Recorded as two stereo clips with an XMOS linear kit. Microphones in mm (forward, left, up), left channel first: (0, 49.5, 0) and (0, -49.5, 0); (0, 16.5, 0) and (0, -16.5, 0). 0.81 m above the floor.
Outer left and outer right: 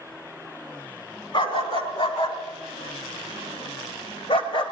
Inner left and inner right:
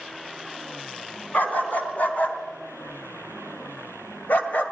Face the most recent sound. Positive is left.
turn(degrees=60)  # may be behind; listen again after turning